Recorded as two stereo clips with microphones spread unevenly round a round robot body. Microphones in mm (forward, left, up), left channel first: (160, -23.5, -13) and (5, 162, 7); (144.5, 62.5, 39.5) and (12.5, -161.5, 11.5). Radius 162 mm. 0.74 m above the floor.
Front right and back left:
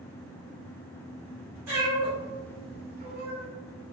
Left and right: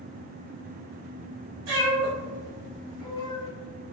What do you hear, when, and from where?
1.7 s a cat meowing: 155° right, 1.4 m